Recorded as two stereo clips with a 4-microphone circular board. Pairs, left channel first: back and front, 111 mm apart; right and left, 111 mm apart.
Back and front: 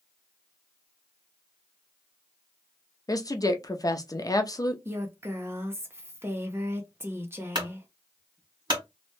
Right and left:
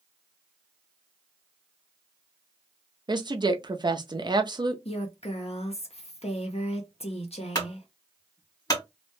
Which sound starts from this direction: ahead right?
A clunk, at 7.5 s.